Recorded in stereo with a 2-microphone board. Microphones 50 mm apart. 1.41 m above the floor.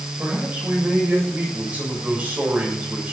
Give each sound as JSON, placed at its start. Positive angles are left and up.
{"t": 0.2, "sound": "a man speaking", "side_deg": -30, "distance_m": 7.0}